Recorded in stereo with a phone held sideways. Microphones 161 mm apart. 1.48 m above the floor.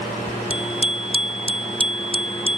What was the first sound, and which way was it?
A bicycle bell, 35° left (ahead or behind).